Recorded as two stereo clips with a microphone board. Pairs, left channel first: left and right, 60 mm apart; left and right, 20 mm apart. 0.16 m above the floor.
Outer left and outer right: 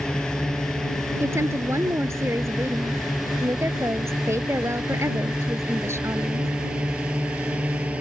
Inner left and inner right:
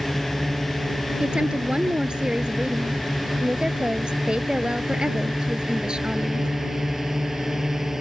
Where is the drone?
10° left (ahead or behind); by 8.0 s 20° right (ahead or behind).